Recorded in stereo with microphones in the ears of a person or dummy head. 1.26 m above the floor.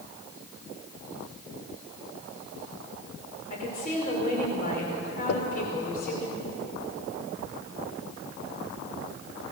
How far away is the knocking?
About 0.8 m.